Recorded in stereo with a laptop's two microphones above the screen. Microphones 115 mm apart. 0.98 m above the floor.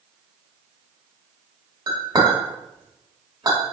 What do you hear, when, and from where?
1.9 s a clink: 30° right (ahead or behind), 1.3 m